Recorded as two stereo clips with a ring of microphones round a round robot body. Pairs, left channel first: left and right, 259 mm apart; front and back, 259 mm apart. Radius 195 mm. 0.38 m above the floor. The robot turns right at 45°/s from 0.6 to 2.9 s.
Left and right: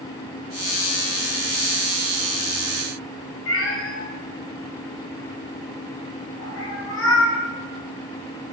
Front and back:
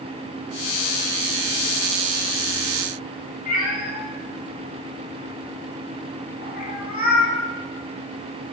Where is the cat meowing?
55° left, 2 m.